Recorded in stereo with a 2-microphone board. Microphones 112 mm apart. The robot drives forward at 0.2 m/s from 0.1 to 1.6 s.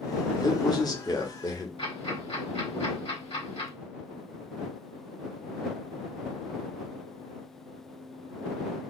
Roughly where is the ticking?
Left.